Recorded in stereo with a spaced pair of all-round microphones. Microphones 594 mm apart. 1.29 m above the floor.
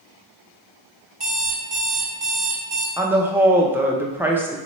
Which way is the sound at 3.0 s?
5° right (ahead or behind).